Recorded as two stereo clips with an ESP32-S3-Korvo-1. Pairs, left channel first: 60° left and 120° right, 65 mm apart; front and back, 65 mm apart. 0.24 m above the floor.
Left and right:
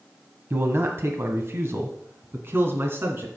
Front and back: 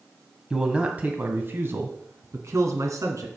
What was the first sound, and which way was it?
A man speaking, 105° right.